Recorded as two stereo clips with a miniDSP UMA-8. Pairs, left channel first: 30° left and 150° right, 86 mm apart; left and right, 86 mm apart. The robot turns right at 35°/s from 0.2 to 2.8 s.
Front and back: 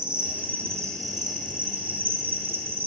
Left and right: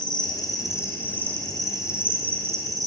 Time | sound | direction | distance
0.0 | an insect | 130° left | 2.5 m